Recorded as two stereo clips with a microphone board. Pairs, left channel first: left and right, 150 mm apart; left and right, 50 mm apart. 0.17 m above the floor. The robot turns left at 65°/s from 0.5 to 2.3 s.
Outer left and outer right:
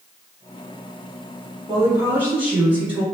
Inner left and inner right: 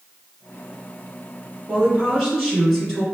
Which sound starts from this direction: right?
A woman speaking, at 1.7 s.